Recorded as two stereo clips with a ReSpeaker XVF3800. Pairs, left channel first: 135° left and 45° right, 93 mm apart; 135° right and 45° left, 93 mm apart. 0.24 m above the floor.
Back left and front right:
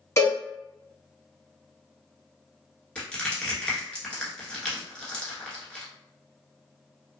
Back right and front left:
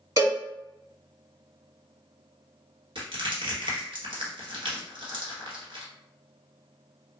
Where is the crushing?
60° left, 1.1 m.